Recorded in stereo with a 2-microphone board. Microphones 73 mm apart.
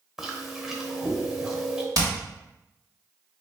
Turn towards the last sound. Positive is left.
turn(degrees=-50)  # may be behind; listen again after turning